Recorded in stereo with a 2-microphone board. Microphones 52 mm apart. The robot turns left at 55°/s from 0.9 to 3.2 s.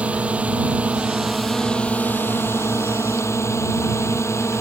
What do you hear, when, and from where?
0.0 s a drone: 150° right; by 4.6 s 80° left